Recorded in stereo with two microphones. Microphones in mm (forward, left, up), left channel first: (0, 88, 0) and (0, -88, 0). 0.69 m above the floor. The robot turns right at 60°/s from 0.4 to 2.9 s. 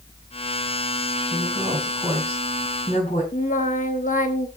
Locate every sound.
1.3 s a woman speaking: 45° right, 5 m; by 3.2 s 50° left, 5 m
3.3 s singing: 50° left (ahead or behind), 1.1 m